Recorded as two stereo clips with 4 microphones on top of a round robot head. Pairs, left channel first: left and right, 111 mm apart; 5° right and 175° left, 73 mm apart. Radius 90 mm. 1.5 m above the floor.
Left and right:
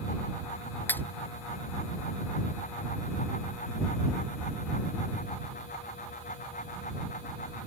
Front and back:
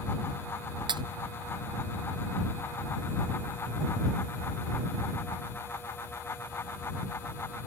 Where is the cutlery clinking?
165° left.